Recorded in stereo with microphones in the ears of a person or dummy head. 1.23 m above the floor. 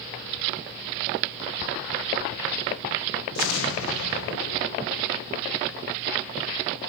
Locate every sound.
3.4 s an explosion: 70° left (ahead or behind), 0.8 m